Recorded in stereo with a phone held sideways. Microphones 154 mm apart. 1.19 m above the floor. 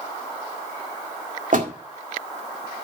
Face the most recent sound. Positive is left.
turn(degrees=-65)  # may be behind; listen again after turning